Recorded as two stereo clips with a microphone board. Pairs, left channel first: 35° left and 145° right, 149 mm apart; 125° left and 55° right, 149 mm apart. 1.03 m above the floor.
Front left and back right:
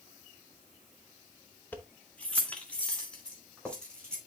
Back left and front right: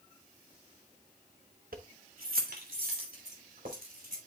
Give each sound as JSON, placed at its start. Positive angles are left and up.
{"t": 1.7, "sound": "keys jangling", "azimuth_deg": -45, "distance_m": 0.8}